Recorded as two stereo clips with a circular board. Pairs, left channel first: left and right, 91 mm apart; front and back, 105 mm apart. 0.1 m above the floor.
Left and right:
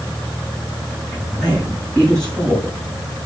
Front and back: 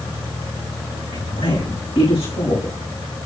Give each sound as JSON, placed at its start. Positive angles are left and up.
{"t": 1.1, "sound": "a woman speaking", "azimuth_deg": 10, "distance_m": 6.0}